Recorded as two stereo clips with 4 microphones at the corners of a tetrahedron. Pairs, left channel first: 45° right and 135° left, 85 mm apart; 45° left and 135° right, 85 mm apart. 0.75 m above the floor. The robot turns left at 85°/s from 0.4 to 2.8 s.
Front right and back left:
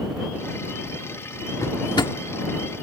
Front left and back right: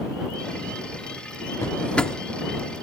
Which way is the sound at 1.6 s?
Straight ahead.